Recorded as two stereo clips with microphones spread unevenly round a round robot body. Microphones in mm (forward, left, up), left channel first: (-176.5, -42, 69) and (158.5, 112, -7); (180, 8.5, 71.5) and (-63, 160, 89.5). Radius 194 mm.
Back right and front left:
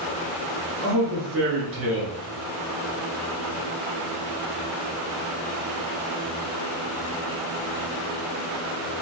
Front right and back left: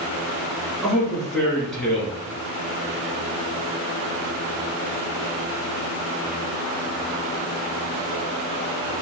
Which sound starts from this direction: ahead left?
A man speaking, at 0.8 s.